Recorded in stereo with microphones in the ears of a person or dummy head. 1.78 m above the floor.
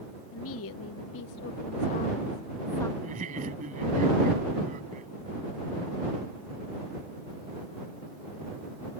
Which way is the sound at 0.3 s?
70° left (ahead or behind).